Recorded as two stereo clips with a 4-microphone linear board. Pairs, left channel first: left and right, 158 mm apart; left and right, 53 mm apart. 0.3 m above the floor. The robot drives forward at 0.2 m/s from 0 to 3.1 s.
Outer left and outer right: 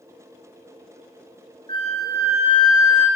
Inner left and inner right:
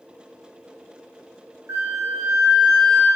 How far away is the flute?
About 2.5 m.